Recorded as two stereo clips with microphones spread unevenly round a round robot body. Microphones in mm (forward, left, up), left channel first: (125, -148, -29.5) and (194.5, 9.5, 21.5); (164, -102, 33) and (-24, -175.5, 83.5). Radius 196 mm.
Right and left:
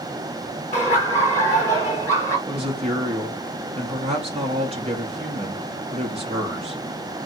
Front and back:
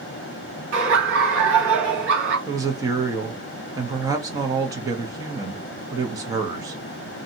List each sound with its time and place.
0.7 s laughter: straight behind, 1.7 m
2.5 s a woman speaking: 120° left, 0.6 m